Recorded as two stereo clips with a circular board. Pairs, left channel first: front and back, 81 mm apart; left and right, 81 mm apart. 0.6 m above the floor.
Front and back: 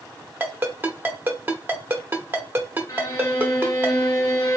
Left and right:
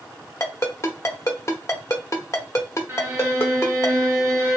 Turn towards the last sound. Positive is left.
turn(degrees=-40)